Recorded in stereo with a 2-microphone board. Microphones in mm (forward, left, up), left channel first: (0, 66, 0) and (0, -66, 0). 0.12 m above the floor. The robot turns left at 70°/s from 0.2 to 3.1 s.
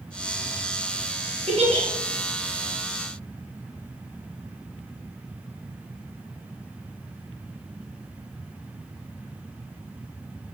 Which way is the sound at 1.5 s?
55° right (ahead or behind).